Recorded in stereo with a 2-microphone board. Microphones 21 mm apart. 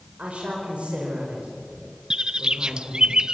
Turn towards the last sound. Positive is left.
turn(degrees=-40)  # may be behind; listen again after turning